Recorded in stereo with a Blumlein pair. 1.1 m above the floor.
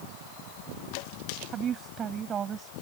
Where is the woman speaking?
25° right.